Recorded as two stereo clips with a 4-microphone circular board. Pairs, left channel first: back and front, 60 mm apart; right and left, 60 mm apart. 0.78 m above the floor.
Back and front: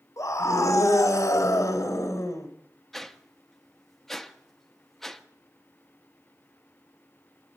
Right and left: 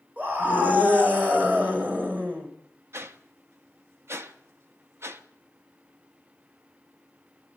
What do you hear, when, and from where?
0.2 s a scream: 150° left, 3.5 m
2.9 s a whoosh: 95° left, 0.9 m